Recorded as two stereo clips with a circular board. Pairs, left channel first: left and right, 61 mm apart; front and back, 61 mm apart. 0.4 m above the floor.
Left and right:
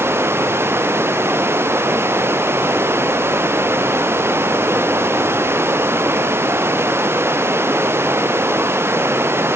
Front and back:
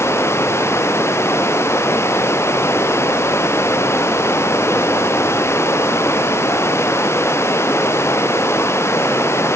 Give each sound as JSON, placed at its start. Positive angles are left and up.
{"t": 0.0, "sound": "running water", "azimuth_deg": -40}